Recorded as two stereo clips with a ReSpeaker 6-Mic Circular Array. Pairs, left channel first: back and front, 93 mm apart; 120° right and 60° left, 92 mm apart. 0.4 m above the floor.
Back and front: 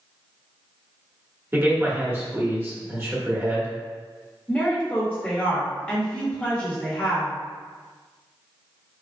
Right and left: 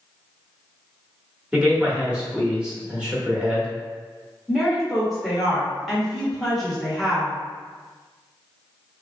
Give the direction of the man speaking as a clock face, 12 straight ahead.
12 o'clock.